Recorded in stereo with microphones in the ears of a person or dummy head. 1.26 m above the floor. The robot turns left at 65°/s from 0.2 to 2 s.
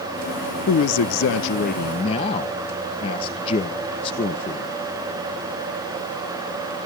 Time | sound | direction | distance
0.7 | a man speaking | 120° left | 0.6 m